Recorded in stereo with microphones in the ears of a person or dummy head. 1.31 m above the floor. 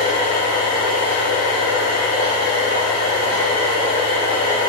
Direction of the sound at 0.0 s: 65° left (ahead or behind).